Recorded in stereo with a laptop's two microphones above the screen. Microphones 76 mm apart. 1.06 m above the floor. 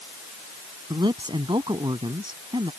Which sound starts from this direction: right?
A man speaking, at 0.9 s.